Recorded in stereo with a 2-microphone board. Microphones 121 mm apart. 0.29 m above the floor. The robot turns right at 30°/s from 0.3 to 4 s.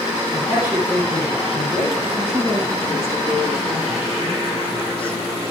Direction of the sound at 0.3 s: 25° right.